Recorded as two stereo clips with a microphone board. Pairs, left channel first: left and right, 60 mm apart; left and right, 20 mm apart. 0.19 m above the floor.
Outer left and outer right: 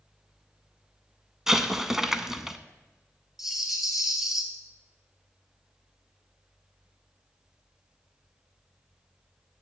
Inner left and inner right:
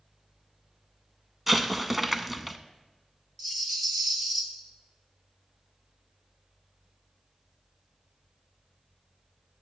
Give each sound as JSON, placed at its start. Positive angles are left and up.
{"t": 1.5, "sound": "an explosion", "side_deg": -5, "distance_m": 0.5}
{"t": 3.4, "sound": "a rattle", "side_deg": -5, "distance_m": 1.3}